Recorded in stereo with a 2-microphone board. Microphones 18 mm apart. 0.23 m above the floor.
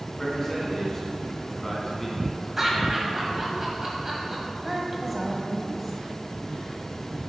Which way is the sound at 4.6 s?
10° right (ahead or behind).